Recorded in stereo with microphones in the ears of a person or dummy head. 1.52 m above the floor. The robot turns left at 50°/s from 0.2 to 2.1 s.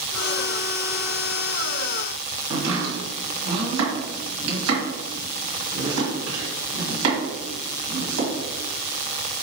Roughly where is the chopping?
Right.